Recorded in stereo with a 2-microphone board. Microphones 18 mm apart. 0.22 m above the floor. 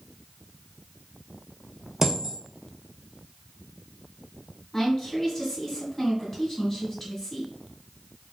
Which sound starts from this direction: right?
A dropped coin, at 2.0 s.